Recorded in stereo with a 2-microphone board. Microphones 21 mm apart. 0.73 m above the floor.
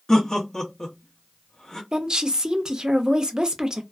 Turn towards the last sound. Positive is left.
turn(degrees=-40)  # may be behind; listen again after turning